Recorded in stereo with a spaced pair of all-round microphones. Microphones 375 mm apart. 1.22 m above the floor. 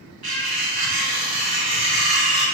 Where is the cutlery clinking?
75° right (ahead or behind), 1.0 m.